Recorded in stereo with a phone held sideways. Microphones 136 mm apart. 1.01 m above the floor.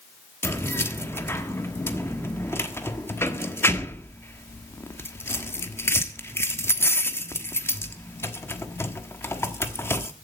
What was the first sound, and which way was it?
Keys jangling, 15° left (ahead or behind).